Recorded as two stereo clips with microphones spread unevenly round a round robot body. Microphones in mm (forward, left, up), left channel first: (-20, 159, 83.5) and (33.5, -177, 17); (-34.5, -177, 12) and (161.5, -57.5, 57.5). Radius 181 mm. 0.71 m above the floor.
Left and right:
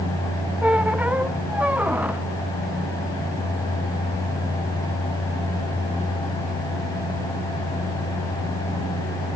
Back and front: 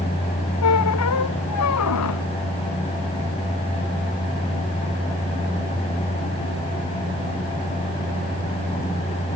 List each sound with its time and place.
0.6 s a squeak: 170° right